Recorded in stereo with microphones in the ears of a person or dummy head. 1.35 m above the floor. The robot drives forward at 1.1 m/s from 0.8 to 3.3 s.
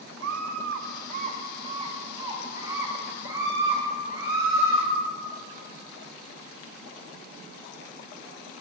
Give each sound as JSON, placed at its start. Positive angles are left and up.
{"t": 0.2, "sound": "a scream", "side_deg": -65, "distance_m": 0.8}